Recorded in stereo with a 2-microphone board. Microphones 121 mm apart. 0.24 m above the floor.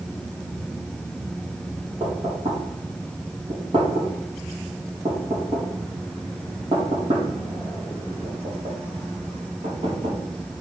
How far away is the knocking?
About 5 m.